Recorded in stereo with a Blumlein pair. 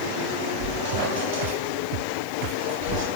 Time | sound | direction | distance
0.6 | a squeak | 60° right | 3.5 m